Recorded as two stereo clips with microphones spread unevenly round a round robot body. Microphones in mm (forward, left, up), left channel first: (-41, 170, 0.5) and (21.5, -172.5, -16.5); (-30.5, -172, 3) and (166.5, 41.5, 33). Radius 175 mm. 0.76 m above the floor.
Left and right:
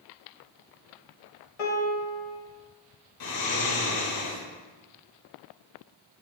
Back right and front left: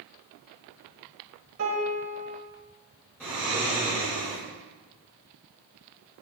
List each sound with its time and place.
1.6 s a piano: 100° left, 1.7 m
3.2 s snoring: 140° left, 2 m